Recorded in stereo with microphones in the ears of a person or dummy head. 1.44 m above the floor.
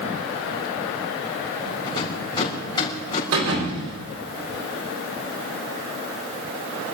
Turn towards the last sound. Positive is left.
turn(degrees=-80)